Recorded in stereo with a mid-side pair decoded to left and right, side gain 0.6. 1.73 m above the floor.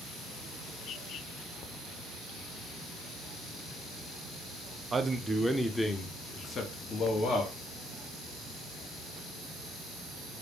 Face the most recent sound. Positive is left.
turn(degrees=50)